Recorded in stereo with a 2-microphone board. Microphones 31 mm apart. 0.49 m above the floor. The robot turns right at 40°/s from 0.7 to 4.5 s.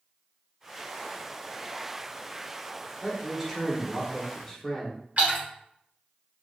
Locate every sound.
3.0 s a man speaking: 15° right (ahead or behind), 0.9 m; by 5.0 s 10° left (ahead or behind), 0.9 m
5.2 s a splash: 50° right (ahead or behind), 1.4 m